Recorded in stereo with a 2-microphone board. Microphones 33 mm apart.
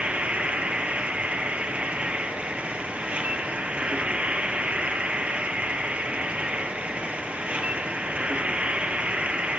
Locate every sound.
0.0 s an insect: 40° right (ahead or behind), 1.6 m